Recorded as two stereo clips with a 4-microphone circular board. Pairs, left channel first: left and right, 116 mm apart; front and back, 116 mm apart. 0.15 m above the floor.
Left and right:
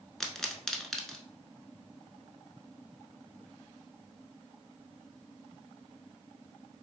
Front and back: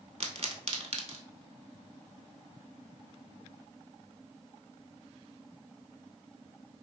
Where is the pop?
175° left, 0.5 m.